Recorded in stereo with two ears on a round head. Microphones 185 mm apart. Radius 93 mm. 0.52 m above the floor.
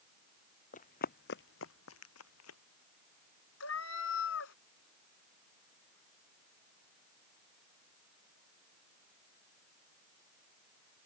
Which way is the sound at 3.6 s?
75° left (ahead or behind).